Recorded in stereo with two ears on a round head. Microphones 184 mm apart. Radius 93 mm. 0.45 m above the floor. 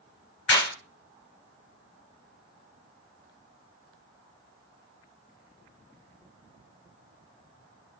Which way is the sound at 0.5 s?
60° left (ahead or behind).